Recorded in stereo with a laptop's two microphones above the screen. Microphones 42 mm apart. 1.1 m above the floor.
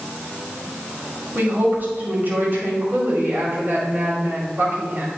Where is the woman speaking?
55° right (ahead or behind), 2.5 m.